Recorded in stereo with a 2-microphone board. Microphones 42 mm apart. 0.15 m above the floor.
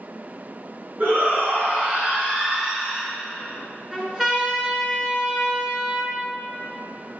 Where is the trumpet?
20° right (ahead or behind), 2.5 m.